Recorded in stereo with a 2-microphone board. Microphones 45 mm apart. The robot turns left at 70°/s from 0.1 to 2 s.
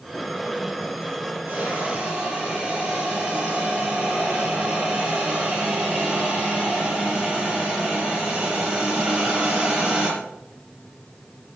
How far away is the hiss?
About 5.5 m.